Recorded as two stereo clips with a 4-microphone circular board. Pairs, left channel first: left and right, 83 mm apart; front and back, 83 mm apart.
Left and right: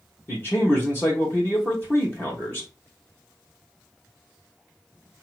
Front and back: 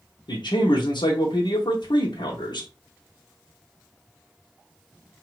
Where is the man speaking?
25° left, 1.1 m.